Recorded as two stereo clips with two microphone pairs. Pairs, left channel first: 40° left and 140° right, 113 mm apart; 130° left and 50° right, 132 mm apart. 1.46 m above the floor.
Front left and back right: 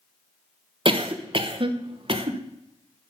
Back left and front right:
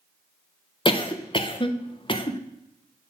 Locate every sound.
0.8 s a cough: straight behind, 1.0 m